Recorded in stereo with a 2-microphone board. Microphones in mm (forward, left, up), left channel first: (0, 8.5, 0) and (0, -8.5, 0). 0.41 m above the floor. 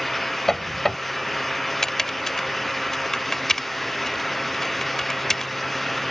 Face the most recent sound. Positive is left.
turn(degrees=25)  # may be behind; listen again after turning